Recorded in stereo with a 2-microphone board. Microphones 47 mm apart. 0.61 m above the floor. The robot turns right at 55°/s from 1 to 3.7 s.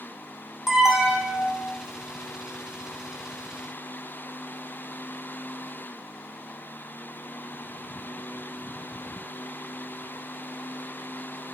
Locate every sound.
0.7 s an alarm: 160° right, 1.4 m; by 1.7 s 120° right, 1.4 m